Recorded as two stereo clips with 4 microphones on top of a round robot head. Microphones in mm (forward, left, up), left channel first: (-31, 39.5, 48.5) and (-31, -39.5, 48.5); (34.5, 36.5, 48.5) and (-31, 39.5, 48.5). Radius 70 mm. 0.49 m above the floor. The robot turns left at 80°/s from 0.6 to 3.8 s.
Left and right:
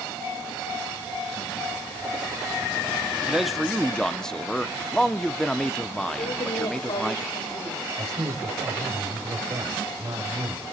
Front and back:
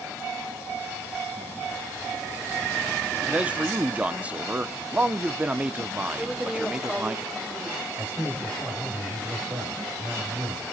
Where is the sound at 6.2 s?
95° left, 2 m.